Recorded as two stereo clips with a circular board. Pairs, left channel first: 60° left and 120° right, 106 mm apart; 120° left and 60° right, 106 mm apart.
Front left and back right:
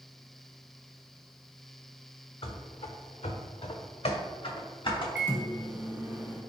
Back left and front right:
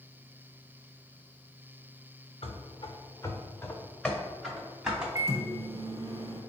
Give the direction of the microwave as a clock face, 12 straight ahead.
2 o'clock.